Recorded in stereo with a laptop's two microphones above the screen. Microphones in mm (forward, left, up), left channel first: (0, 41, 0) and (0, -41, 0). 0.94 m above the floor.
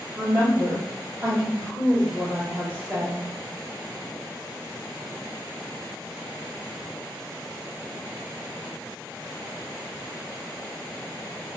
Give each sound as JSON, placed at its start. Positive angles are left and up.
{"t": 0.1, "sound": "a woman speaking", "side_deg": -30, "distance_m": 1.6}